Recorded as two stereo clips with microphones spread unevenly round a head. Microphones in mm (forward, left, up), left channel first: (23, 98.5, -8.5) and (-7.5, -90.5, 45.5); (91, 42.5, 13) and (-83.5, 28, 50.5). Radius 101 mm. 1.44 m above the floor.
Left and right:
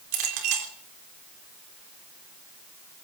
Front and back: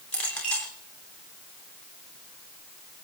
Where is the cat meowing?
I don't hear a cat meowing.